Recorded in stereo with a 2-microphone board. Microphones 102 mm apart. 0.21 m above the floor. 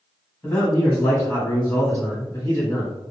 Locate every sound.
0.4 s a man speaking: 20° left (ahead or behind), 1.2 m